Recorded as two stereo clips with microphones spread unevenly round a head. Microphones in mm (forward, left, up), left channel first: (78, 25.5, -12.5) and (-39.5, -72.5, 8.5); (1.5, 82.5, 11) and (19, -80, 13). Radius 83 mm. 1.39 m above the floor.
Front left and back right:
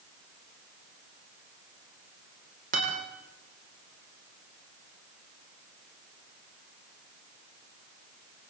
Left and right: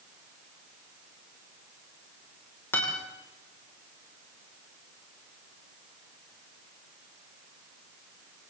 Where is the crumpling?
I don't hear crumpling.